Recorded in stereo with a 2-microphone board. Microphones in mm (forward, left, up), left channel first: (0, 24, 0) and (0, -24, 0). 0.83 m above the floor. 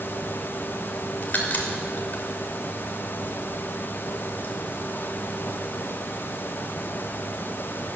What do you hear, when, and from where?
1.2 s a crack: 40° left (ahead or behind), 3 m